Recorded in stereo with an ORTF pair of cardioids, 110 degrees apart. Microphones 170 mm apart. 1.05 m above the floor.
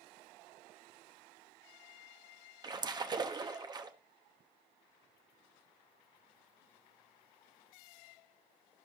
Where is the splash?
25° right, 1.0 m.